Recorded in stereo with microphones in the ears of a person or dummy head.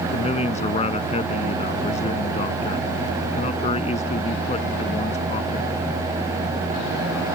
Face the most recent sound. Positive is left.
turn(degrees=35)  # may be behind; listen again after turning